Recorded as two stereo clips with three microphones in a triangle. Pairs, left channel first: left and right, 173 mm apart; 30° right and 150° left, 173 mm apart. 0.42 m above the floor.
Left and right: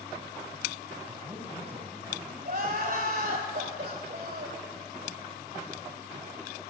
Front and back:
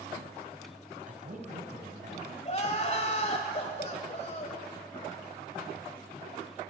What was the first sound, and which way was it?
A man speaking, 170° right.